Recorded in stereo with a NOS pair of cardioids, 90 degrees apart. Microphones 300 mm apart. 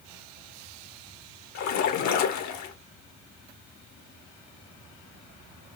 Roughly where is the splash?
Left.